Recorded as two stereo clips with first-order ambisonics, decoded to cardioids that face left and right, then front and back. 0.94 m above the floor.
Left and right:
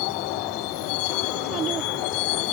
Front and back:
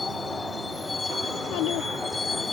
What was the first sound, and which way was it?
A vehicle, 80° left.